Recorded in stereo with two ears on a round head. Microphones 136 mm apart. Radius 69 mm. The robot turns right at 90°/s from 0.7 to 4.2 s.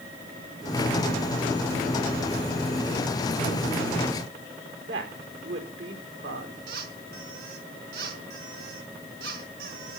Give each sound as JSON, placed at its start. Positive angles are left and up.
{"t": 4.8, "sound": "a woman speaking", "side_deg": -85, "distance_m": 4.5}
{"t": 6.7, "sound": "a squeak", "side_deg": -70, "distance_m": 4.0}